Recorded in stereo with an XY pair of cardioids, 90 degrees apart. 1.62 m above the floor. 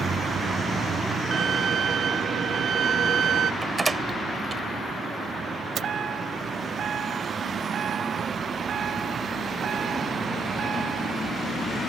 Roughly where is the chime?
Ahead right.